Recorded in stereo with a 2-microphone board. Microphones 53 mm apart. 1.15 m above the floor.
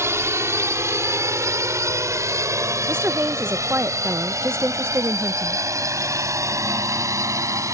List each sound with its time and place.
0.0 s a drone: 65° right (ahead or behind); by 7.7 s 85° right
2.9 s a woman speaking: 50° right (ahead or behind)